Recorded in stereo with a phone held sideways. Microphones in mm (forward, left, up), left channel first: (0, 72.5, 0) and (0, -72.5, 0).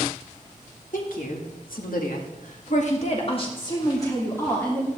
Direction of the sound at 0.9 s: 70° left (ahead or behind).